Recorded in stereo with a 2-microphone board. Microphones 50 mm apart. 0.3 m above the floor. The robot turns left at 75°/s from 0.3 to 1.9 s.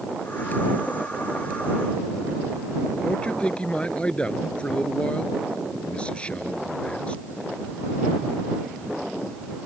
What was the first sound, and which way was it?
A man speaking, 20° left (ahead or behind).